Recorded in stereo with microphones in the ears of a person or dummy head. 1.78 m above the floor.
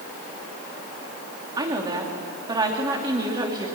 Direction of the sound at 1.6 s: 20° right (ahead or behind).